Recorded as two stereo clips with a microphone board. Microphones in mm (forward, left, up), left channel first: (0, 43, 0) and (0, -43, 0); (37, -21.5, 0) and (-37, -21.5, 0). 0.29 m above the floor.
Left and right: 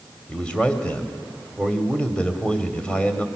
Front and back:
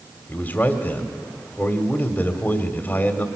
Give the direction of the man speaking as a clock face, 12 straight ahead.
11 o'clock.